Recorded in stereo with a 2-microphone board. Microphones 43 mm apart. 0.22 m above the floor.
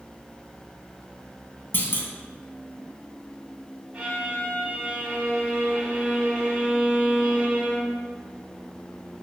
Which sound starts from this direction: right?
A violin, at 3.9 s.